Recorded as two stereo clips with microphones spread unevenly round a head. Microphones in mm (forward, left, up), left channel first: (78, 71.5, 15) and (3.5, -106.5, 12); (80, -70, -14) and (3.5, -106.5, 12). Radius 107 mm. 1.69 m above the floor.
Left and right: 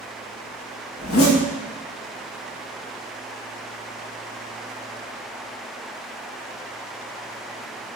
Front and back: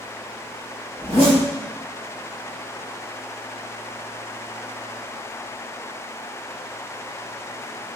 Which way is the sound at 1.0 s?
85° left.